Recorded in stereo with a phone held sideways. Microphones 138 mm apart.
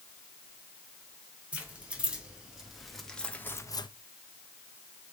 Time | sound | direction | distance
1.5 | keys jangling | 10° right (ahead or behind) | 3.5 m